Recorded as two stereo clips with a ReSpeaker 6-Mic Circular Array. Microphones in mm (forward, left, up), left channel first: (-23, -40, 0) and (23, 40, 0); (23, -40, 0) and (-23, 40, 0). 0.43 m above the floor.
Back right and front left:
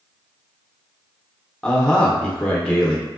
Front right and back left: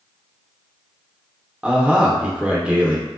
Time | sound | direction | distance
1.6 | a man speaking | 175° left | 0.7 m